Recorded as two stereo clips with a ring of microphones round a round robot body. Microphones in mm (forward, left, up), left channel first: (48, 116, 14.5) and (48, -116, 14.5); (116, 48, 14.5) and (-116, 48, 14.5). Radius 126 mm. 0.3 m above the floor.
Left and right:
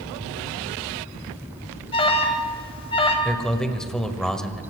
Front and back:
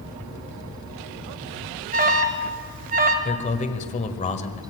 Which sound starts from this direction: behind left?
An alarm, at 1.9 s.